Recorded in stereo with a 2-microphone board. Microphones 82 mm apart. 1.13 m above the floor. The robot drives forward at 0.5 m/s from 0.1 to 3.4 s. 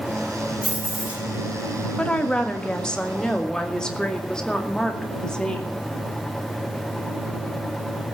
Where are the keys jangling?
15° right (ahead or behind), 7 m.